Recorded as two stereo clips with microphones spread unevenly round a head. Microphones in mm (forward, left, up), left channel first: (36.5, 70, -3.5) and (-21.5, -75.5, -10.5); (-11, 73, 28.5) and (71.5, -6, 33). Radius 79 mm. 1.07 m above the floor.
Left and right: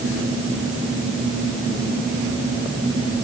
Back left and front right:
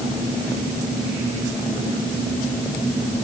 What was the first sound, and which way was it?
Only background noise.